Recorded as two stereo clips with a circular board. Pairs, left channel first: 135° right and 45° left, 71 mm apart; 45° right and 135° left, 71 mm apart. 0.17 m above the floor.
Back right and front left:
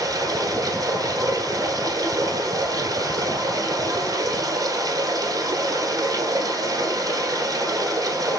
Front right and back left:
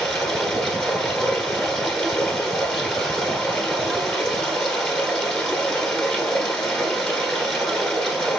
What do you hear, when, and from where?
0.0 s running water: 40° left, 1.3 m